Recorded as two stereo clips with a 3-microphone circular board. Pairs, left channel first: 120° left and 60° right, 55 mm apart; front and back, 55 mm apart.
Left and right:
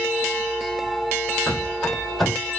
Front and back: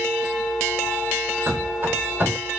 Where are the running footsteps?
155° right, 1.3 m.